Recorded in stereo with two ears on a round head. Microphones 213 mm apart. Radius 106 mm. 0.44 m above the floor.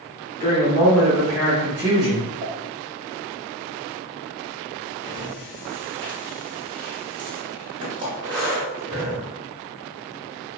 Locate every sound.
0.4 s a woman speaking: 25° left (ahead or behind), 1.2 m; by 2.3 s 25° right (ahead or behind), 1.3 m
2.4 s a pop: 35° right (ahead or behind), 0.8 m
5.0 s breathing: 20° right (ahead or behind), 1.5 m